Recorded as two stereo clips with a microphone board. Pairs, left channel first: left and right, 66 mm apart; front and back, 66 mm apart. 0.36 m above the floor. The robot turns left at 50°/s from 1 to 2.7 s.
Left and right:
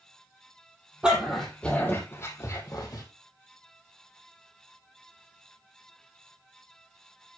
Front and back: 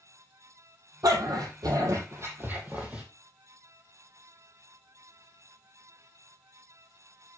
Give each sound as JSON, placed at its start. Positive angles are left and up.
{"t": 1.0, "sound": "a dog barking", "azimuth_deg": -165, "distance_m": 5.0}